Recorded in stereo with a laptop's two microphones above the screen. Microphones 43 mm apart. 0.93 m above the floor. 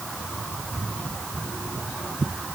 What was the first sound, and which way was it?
Only background noise.